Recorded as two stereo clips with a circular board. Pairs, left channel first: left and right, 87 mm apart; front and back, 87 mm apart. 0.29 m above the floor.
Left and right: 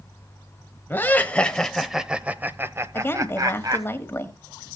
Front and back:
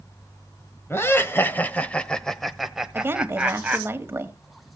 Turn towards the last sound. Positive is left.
turn(degrees=135)